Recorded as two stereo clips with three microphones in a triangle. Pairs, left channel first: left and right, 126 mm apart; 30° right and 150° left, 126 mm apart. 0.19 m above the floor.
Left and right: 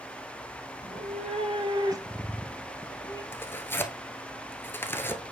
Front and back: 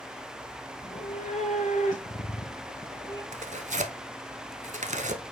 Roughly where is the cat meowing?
Ahead right.